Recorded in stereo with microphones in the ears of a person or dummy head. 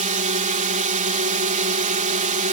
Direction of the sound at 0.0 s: 30° right (ahead or behind).